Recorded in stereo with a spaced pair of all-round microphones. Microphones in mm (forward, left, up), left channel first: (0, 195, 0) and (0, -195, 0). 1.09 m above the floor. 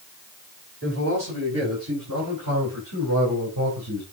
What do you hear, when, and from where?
0.8 s a man speaking: 40° right (ahead or behind), 6.5 m; by 4.0 s 75° right (ahead or behind), 4 m